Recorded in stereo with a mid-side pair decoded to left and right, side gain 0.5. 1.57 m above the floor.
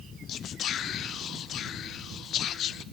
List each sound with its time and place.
0.3 s whispering: 65° left, 0.5 m